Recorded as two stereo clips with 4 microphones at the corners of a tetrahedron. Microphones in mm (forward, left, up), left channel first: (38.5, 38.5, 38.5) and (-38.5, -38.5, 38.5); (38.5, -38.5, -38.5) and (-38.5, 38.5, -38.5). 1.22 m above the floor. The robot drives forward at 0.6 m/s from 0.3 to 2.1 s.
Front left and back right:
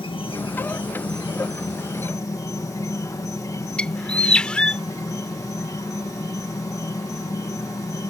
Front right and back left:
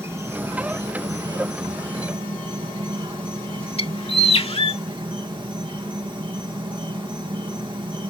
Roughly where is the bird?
Ahead right.